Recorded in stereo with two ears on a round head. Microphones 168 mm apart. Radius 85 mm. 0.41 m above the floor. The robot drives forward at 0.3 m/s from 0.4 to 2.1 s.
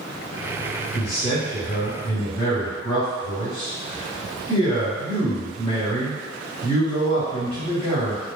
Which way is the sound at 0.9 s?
35° left (ahead or behind).